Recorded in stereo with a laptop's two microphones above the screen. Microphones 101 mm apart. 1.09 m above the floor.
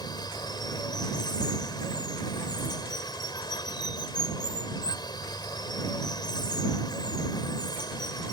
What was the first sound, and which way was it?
Running water, 45° left (ahead or behind).